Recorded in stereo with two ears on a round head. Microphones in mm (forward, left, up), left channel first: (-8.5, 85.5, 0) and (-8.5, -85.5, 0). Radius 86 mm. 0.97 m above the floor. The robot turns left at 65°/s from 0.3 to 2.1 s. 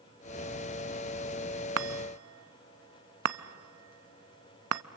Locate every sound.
1.8 s a chime: 70° right (ahead or behind), 0.6 m; by 4.8 s 90° right, 0.6 m